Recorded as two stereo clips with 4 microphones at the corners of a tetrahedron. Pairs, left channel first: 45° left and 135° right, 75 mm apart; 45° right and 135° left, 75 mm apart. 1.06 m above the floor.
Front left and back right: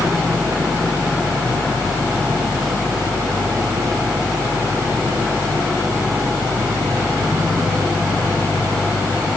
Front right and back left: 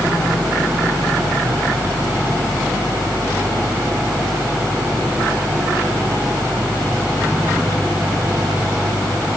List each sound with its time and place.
Only background noise.